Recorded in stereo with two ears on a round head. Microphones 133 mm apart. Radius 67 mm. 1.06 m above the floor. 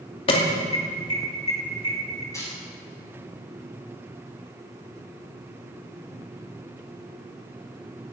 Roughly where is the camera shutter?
Left.